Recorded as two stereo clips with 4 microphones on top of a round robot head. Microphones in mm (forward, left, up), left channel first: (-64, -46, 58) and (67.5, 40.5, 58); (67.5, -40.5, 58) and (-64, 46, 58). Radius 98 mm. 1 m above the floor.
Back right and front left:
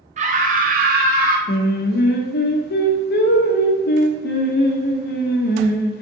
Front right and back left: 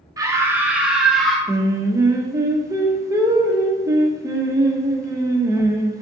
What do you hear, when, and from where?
0.2 s a scream: 80° left, 1.4 m; by 1.4 s 55° left, 2 m
1.5 s singing: 145° right, 0.9 m